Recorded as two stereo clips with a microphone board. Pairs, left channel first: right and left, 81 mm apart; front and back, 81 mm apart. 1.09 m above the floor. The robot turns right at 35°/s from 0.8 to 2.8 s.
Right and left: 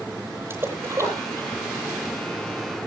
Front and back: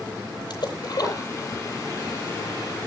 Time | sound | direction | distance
0.5 | a splash | 30° left | 9 m